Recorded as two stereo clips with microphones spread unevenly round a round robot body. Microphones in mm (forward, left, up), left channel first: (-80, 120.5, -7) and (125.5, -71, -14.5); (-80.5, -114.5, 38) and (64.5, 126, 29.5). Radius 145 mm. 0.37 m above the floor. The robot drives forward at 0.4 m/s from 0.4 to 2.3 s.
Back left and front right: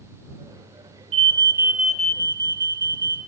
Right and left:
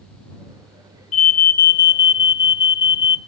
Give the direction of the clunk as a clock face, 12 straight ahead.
I don't hear a clunk.